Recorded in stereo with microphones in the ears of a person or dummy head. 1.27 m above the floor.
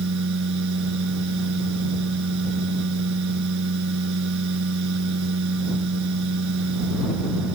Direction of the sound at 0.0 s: 70° right (ahead or behind).